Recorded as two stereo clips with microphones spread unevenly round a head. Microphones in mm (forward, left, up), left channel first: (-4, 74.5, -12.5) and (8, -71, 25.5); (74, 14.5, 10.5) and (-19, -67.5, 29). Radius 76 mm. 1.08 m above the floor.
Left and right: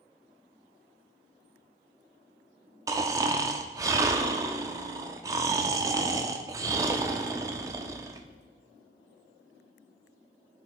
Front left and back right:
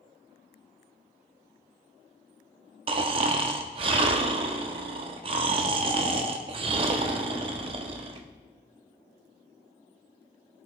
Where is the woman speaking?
I don't hear a woman speaking.